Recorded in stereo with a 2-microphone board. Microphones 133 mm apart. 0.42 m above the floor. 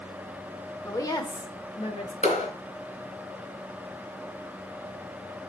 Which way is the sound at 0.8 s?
20° left (ahead or behind).